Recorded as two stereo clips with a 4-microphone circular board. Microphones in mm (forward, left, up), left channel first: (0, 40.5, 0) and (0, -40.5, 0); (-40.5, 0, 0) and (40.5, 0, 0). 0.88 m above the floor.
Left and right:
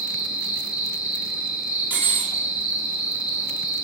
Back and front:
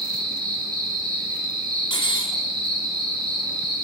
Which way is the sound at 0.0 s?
15° right.